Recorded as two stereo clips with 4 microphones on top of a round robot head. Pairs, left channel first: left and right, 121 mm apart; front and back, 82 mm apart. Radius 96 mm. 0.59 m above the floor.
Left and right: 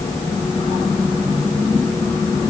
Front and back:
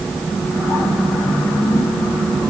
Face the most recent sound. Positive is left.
No sound to turn to.